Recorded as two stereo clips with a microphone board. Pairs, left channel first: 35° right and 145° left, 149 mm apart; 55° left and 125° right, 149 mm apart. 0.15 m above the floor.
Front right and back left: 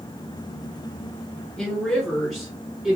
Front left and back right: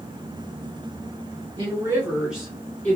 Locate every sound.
1.6 s a woman speaking: 120° right, 1.6 m; by 3.0 s 75° left, 1.5 m